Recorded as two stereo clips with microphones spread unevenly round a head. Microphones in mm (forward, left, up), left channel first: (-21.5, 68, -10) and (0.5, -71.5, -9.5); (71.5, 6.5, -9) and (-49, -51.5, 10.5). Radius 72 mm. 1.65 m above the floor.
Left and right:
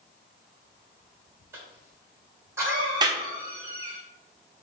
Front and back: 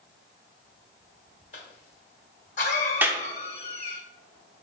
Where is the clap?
105° right, 0.7 m.